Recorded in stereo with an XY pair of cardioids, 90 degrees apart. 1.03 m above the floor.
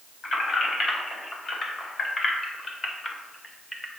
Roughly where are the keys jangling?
Ahead left.